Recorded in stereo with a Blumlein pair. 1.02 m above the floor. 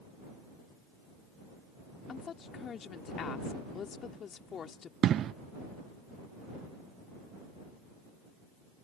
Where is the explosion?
30° right.